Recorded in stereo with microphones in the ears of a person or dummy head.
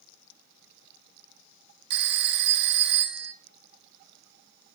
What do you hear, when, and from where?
1.9 s a phone ringing: 55° right (ahead or behind), 0.9 m